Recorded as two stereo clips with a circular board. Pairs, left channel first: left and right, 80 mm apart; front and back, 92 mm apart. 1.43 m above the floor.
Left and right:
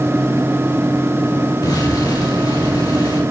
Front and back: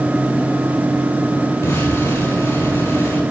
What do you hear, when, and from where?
1.6 s an explosion: 60° left, 4.5 m